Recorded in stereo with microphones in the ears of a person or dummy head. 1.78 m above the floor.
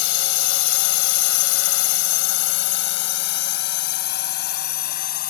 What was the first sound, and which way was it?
A drone, 70° left (ahead or behind).